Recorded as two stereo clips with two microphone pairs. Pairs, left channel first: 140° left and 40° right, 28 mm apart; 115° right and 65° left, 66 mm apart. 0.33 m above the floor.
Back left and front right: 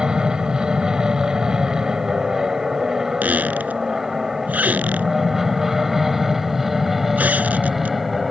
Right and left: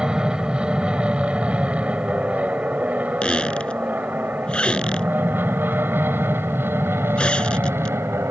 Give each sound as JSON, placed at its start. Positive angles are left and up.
{"t": 0.0, "sound": "an aircraft", "azimuth_deg": 0}
{"t": 3.2, "sound": "a squeak", "azimuth_deg": -40}